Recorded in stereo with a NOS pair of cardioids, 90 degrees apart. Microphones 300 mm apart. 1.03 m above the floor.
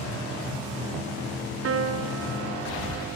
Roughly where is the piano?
Ahead right.